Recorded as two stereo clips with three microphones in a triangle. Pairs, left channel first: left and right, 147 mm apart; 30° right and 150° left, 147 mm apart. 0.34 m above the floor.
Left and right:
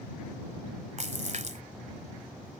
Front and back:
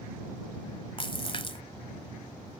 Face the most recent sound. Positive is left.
turn(degrees=-75)